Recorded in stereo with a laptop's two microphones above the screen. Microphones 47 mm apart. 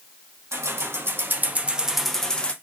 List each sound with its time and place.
0.5 s keys jangling: 70° right (ahead or behind), 1.0 m; by 2.5 s 20° left (ahead or behind), 0.7 m